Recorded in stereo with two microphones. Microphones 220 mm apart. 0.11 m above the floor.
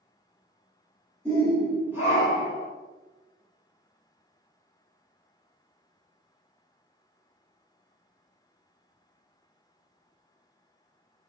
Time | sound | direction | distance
1.2 | a shout | 5° left (ahead or behind) | 1.2 m